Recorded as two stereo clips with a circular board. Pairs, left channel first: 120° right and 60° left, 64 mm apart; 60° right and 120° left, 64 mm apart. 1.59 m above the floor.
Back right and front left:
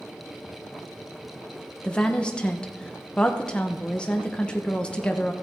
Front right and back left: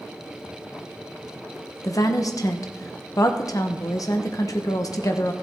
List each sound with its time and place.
1.8 s a woman speaking: 45° right, 1.0 m